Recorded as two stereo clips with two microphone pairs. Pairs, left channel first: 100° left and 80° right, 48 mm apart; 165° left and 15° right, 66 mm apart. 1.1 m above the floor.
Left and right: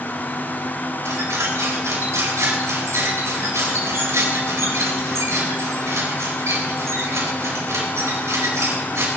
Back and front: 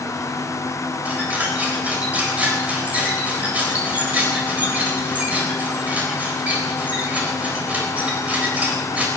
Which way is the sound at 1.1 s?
80° right.